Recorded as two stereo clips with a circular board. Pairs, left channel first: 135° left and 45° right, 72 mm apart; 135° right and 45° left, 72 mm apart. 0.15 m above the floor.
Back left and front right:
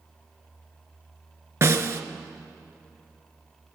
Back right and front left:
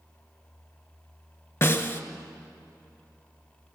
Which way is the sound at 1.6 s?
90° right.